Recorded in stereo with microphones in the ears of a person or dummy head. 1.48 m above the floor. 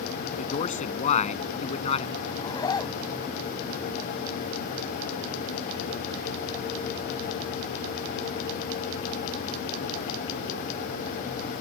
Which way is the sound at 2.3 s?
20° left (ahead or behind).